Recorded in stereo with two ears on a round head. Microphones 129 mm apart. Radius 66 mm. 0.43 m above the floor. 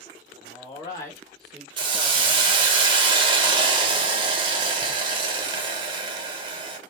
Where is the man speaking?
40° left (ahead or behind), 1.3 m; by 2.6 s 45° right (ahead or behind), 1.3 m.